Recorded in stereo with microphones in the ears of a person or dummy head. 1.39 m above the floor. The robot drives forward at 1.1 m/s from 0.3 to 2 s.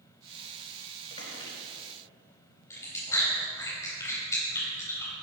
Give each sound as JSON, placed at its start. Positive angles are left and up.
{"t": 1.1, "sound": "a squeak", "side_deg": 25, "distance_m": 3.5}
{"t": 2.7, "sound": "chewing", "side_deg": 20, "distance_m": 4.5}